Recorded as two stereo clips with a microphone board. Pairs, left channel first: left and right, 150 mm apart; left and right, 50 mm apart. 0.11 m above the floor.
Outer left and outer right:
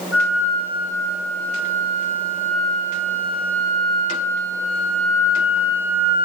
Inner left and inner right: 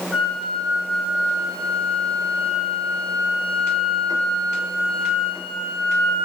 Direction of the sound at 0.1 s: 10° right (ahead or behind).